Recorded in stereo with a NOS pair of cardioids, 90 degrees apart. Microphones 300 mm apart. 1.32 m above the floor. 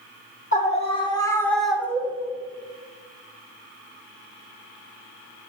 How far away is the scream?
About 3 m.